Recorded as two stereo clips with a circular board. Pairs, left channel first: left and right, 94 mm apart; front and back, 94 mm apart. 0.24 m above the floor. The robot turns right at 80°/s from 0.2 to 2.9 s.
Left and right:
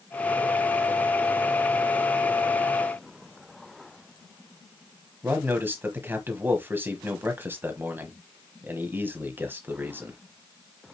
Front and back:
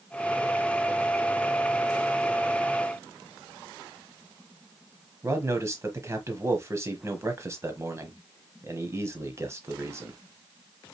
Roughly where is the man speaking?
Behind right.